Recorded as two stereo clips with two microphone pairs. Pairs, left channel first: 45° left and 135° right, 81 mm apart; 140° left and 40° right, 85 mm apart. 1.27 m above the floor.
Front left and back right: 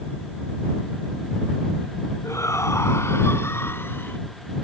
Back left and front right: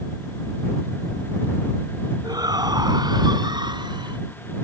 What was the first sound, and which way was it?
A shout, 5° right.